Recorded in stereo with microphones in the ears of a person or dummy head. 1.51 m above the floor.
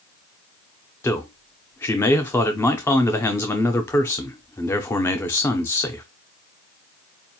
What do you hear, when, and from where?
1.0 s a man speaking: 10° left (ahead or behind), 0.6 m